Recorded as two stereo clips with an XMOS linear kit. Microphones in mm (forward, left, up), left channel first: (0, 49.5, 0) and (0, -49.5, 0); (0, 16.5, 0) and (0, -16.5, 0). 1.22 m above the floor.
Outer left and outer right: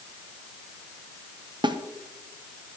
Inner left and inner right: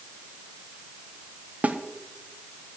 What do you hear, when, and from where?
1.6 s a snare drum: 50° right (ahead or behind), 0.9 m